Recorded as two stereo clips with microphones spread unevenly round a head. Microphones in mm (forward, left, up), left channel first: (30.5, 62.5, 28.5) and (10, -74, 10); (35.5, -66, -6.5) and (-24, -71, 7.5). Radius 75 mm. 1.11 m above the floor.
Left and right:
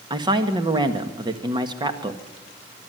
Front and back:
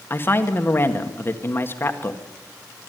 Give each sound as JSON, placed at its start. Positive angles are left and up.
{"t": 0.1, "sound": "a woman speaking", "azimuth_deg": -40, "distance_m": 1.8}